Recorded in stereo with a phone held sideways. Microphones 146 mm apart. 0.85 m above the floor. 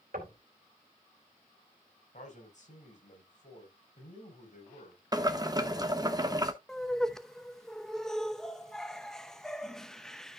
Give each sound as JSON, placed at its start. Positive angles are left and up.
{"t": 0.1, "sound": "knocking", "side_deg": -85, "distance_m": 2.5}
{"t": 2.1, "sound": "a man speaking", "side_deg": 55, "distance_m": 4.0}
{"t": 5.1, "sound": "boiling", "side_deg": -25, "distance_m": 1.1}
{"t": 6.7, "sound": "laughter", "side_deg": 5, "distance_m": 0.7}